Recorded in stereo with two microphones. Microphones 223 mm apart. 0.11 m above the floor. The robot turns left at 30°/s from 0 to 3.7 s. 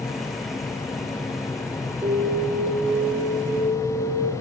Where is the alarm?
15° right, 8 m; by 4.3 s 65° right, 8 m.